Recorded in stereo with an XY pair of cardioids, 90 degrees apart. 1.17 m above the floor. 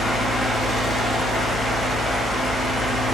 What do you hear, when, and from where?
0.0 s a fan: 60° left, 0.9 m